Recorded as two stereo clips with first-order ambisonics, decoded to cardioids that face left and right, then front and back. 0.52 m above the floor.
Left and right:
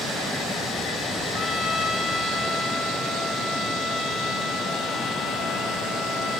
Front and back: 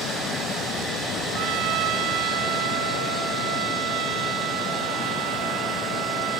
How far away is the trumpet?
About 3.5 m.